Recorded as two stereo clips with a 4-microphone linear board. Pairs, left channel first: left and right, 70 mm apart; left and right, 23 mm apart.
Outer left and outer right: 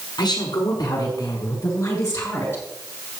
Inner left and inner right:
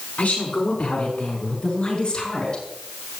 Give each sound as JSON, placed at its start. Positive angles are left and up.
{"t": 0.2, "sound": "a woman speaking", "side_deg": 70, "distance_m": 6.5}